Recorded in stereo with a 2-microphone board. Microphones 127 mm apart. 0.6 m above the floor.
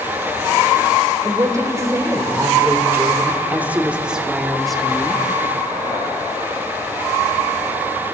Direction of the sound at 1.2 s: 25° right (ahead or behind).